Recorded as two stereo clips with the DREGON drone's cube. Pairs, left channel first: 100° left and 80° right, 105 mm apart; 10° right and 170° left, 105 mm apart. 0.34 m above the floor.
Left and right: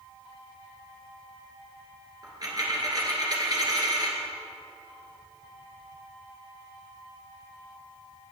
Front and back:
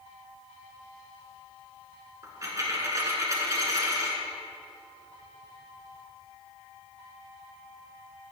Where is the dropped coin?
130° right, 2 m.